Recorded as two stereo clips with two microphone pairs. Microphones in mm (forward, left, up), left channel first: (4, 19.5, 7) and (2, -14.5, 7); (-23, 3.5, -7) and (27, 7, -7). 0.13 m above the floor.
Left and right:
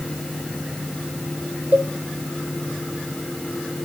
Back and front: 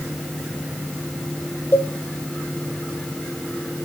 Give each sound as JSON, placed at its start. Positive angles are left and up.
{"t": 1.7, "sound": "a cowbell", "azimuth_deg": -130, "distance_m": 1.0}